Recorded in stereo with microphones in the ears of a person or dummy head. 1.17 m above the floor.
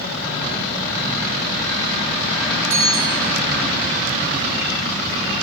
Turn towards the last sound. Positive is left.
turn(degrees=-65)  # may be behind; listen again after turning